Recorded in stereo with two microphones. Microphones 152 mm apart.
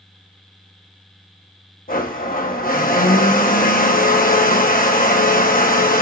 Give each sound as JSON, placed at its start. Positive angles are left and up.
{"t": 1.9, "sound": "a blender", "side_deg": 70, "distance_m": 0.9}